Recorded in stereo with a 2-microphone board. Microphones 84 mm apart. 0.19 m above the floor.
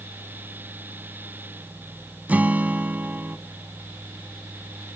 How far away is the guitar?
About 0.6 m.